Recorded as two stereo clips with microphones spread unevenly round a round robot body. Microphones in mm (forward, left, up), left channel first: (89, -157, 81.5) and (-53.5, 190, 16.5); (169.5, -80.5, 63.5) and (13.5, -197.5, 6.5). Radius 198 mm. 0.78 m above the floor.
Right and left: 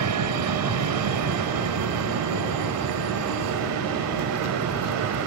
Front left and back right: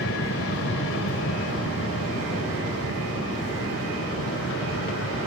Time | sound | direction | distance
0.0 | an aircraft | 75° left | ?